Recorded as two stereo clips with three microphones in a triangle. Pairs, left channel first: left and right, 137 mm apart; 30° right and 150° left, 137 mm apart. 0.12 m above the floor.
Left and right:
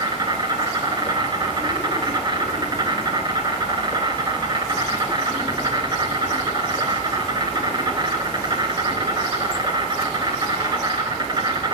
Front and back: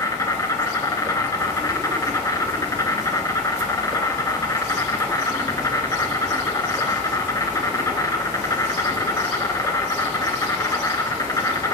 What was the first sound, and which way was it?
An insect, 75° right.